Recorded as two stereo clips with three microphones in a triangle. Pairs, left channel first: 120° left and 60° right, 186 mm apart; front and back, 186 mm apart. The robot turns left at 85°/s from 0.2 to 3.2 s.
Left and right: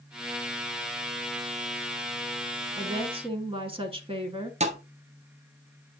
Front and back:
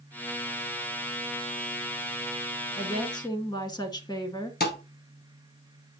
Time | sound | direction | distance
2.8 | a woman speaking | 5° right | 1.2 m
4.6 | a thud | 10° right | 1.1 m